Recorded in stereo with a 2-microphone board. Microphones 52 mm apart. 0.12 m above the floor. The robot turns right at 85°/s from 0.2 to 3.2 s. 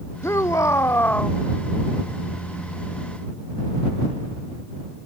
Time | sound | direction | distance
0.2 | a shout | 65° left | ?